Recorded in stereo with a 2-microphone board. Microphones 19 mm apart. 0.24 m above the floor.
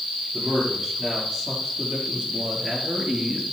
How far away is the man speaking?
About 5.5 m.